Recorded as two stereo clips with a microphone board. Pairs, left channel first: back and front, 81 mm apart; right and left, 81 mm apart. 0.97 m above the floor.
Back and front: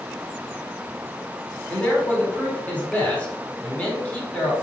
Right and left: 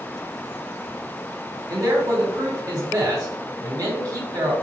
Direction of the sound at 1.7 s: 110° left.